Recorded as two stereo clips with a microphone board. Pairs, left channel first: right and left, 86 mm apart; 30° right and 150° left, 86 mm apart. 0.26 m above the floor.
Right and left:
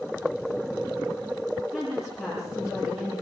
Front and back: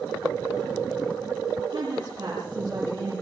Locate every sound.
1.7 s a woman speaking: 175° left, 8 m